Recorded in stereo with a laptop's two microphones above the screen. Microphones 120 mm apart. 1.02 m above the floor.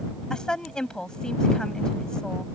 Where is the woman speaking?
5° left (ahead or behind).